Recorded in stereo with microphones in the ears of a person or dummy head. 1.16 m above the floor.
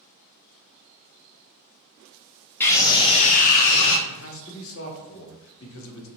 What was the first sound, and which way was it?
A scream, 10° left (ahead or behind).